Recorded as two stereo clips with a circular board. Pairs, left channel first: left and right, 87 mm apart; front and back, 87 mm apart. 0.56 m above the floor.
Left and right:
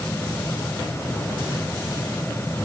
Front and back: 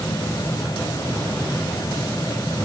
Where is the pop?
I don't hear a pop.